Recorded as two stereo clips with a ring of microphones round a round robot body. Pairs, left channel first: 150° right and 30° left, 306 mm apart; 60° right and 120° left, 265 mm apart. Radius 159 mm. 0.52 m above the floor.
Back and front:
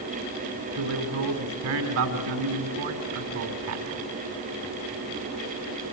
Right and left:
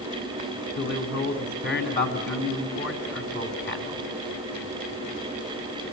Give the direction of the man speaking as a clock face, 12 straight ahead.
12 o'clock.